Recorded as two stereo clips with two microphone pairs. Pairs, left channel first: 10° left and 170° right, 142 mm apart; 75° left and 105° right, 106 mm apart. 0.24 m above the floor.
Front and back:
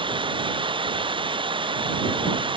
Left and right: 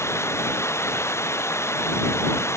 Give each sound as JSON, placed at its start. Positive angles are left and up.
{"t": 0.0, "sound": "running water", "azimuth_deg": 140}